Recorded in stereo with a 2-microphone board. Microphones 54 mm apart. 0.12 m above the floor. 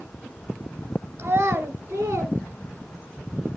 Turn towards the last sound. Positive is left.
turn(degrees=-25)  # may be behind; listen again after turning